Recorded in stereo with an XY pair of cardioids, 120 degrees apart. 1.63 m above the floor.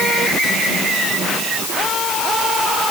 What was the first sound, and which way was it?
Only background noise.